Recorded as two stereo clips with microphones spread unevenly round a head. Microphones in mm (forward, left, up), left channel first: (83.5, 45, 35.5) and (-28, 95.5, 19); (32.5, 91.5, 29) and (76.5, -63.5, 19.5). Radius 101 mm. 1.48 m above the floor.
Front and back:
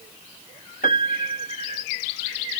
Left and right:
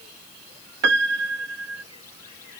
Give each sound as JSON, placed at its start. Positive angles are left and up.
{"t": 0.8, "sound": "a piano", "azimuth_deg": -75}